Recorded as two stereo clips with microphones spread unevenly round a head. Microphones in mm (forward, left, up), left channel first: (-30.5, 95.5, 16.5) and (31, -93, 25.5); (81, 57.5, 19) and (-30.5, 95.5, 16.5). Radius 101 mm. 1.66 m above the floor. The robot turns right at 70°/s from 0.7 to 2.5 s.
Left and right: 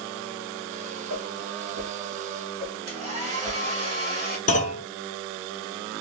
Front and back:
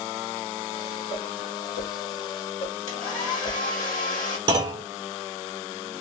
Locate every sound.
1.1 s a whoosh: 80° right, 1.2 m; by 3.6 s 20° left, 1.2 m
2.9 s a hair dryer: 15° right, 1.6 m
4.5 s a clunk: 140° left, 0.8 m